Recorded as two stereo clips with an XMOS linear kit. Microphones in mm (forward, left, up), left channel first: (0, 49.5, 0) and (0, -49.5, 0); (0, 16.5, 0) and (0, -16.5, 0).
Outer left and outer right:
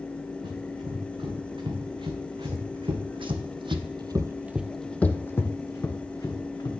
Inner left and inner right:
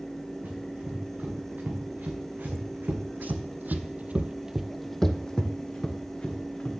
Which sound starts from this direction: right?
Running footsteps, at 0.4 s.